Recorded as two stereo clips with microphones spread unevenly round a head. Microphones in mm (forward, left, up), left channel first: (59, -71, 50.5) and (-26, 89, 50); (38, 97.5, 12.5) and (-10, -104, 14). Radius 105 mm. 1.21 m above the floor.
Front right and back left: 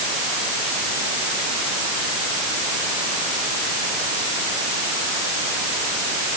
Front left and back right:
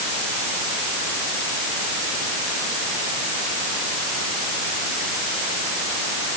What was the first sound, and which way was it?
Only background noise.